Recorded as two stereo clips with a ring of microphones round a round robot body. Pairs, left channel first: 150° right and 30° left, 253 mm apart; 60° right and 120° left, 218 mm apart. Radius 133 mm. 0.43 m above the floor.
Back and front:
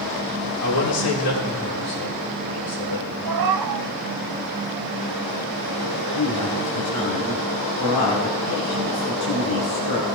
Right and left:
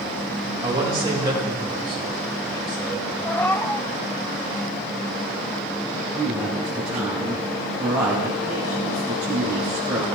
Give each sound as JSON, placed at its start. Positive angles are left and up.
{"t": 0.6, "sound": "a man speaking", "azimuth_deg": -165, "distance_m": 5.0}
{"t": 3.2, "sound": "a cat meowing", "azimuth_deg": 20, "distance_m": 0.7}
{"t": 6.2, "sound": "a woman speaking", "azimuth_deg": -155, "distance_m": 2.5}